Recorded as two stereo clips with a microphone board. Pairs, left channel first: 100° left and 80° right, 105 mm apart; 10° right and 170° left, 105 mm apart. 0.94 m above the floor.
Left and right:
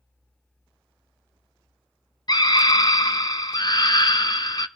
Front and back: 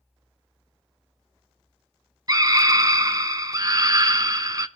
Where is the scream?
130° left, 0.8 m.